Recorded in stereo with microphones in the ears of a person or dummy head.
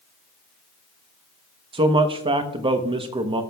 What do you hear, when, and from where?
1.7 s a man speaking: 20° right (ahead or behind), 0.9 m